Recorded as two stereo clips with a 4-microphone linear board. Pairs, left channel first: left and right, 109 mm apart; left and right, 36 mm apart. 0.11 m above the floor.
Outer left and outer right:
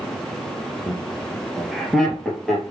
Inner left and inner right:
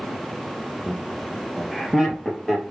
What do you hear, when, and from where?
0.9 s laughter: 5° right (ahead or behind), 1.5 m; by 2.6 s 5° left (ahead or behind), 2.5 m